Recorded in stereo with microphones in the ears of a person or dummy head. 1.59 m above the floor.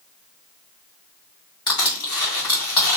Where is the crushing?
20° left (ahead or behind), 3 m.